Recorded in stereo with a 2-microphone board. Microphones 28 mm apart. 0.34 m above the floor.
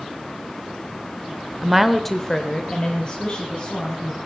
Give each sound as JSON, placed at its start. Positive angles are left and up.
{"t": 1.6, "sound": "a woman speaking", "side_deg": -15, "distance_m": 0.9}